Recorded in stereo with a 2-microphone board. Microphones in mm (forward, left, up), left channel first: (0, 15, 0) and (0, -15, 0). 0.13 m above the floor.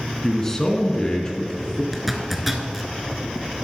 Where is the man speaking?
10° left (ahead or behind), 1.2 m; by 1.8 s 30° left (ahead or behind), 1.5 m.